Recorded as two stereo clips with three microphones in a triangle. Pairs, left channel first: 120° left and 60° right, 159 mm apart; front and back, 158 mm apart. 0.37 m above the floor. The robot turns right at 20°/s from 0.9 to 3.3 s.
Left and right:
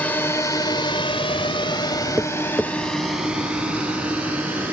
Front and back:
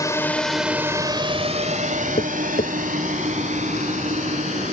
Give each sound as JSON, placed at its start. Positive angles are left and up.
{"t": 0.0, "sound": "a drone", "azimuth_deg": 50}
{"t": 2.2, "sound": "tapping", "azimuth_deg": 20}